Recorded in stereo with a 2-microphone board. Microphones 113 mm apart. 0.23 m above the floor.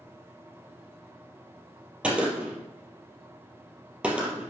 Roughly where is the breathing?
I don't hear breathing.